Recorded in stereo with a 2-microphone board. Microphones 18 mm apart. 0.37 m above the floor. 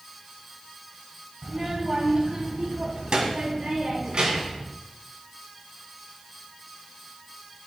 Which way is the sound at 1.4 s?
35° right (ahead or behind).